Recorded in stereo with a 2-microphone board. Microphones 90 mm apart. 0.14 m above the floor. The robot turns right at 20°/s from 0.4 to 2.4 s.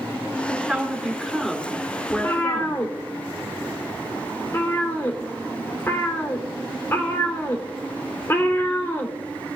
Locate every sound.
0.5 s a woman speaking: 15° right, 2.5 m; by 2.8 s 20° left, 2.5 m
2.1 s a cat meowing: 35° left (ahead or behind), 2.5 m; by 9.6 s 30° left (ahead or behind), 2.5 m